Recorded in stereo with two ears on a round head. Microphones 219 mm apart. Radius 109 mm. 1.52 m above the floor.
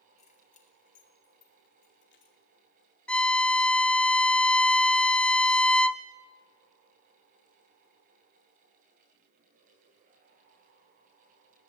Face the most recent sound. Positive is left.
turn(degrees=5)  # may be behind; listen again after turning